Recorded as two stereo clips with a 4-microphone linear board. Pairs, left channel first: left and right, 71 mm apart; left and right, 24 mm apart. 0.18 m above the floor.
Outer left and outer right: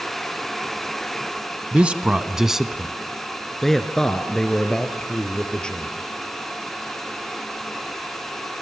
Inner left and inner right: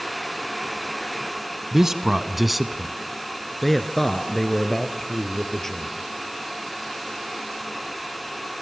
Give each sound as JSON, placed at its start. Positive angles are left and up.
{"t": 1.7, "sound": "a man speaking", "side_deg": -20, "distance_m": 1.0}